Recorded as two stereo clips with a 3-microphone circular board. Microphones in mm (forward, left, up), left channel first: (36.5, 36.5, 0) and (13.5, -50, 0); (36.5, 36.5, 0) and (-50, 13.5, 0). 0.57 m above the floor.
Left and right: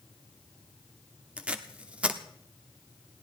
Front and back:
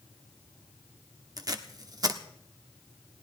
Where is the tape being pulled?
175° right, 1.2 m.